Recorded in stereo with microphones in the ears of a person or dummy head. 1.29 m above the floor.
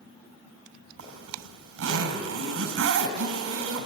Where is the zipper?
75° right (ahead or behind), 3.5 m.